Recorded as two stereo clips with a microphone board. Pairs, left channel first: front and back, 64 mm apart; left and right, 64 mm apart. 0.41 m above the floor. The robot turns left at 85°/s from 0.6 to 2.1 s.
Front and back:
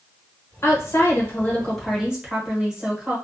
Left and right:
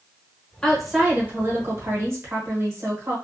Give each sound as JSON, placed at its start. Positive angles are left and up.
{"t": 0.6, "sound": "a woman speaking", "azimuth_deg": 15, "distance_m": 1.1}